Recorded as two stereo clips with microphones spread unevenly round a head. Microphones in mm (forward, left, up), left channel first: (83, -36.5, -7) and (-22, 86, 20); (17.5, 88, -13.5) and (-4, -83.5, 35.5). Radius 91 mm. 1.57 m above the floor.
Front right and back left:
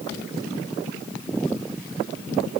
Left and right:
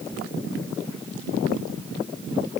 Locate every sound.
Only background noise.